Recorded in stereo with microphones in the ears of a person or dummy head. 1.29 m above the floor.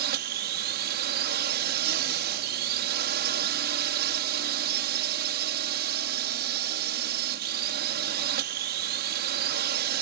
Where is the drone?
50° right (ahead or behind).